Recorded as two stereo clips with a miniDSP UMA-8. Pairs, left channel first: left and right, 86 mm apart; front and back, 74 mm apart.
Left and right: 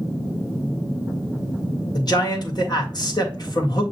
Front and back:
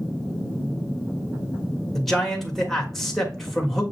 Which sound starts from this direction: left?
A man speaking, at 1.9 s.